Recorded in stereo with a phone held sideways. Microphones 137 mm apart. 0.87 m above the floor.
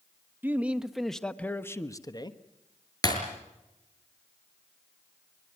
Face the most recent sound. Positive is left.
turn(degrees=30)  # may be behind; listen again after turning